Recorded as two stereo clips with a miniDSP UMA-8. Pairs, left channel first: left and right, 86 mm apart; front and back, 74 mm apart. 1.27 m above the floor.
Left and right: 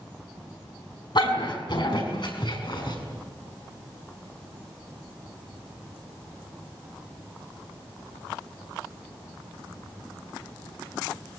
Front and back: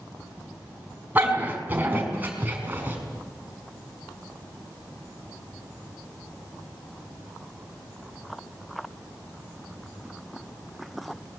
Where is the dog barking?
115° left, 5 m.